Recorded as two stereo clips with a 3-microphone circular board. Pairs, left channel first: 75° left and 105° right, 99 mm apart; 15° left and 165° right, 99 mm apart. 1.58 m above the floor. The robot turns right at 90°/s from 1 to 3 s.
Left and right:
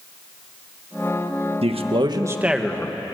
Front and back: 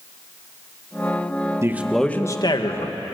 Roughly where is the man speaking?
Right.